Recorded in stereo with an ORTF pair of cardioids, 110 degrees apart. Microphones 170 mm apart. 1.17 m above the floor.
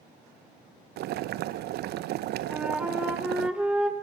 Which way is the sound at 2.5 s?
5° right.